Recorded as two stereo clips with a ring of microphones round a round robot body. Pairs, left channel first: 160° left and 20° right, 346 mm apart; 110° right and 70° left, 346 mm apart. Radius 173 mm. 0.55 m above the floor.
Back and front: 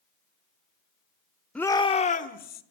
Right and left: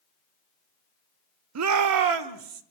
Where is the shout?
70° left, 0.8 m; by 2.6 s 95° left, 1.7 m.